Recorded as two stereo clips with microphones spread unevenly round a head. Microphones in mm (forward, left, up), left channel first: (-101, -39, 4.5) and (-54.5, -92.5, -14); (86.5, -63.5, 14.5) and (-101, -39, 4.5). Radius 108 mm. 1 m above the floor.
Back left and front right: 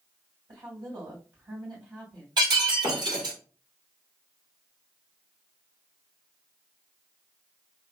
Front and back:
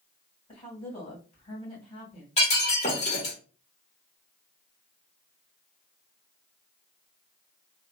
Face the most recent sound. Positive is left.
turn(degrees=-65)